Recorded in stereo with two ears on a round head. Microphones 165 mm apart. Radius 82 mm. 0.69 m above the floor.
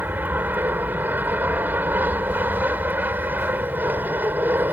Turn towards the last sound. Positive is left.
turn(degrees=-10)  # may be behind; listen again after turning